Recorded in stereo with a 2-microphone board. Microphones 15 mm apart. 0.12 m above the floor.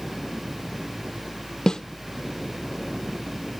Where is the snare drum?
55° left (ahead or behind), 0.8 m.